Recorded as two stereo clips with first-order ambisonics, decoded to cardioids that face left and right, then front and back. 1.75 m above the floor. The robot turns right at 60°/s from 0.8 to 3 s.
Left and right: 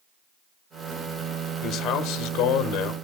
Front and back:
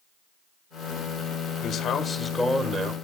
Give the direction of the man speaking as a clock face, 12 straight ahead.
10 o'clock.